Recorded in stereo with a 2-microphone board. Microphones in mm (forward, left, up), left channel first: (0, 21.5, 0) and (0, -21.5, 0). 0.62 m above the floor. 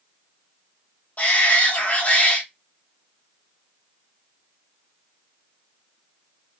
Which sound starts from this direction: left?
A shout, at 1.2 s.